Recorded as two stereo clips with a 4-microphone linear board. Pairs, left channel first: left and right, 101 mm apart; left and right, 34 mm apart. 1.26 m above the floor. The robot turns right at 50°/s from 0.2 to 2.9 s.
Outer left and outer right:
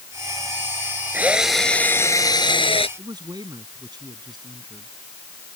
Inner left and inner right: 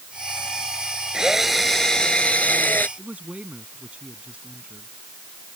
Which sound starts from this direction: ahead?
A drill, at 1.1 s.